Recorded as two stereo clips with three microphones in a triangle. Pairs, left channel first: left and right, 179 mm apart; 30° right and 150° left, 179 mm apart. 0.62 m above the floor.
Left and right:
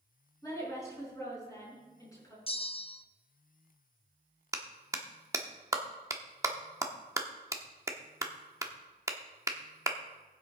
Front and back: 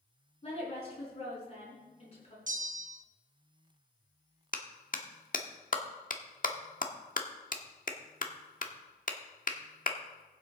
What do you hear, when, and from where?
0.4 s a woman speaking: 20° left, 6 m
2.5 s a bell: 135° left, 0.5 m
4.5 s a clap: 20° right, 1.0 m